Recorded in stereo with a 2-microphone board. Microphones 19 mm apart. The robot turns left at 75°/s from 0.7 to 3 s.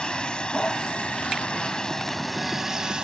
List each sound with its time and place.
0.0 s a vehicle: 125° left; by 3.0 s 50° right